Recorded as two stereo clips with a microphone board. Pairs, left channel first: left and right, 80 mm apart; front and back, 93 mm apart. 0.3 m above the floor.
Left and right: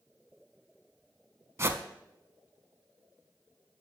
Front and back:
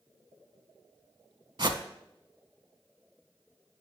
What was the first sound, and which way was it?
A whoosh, 145° right.